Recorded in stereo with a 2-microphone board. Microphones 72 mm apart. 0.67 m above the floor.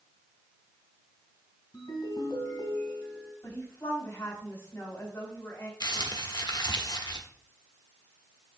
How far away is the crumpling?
About 1.0 m.